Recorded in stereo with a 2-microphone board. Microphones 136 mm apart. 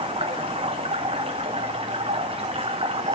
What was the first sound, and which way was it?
Running water, 40° right (ahead or behind).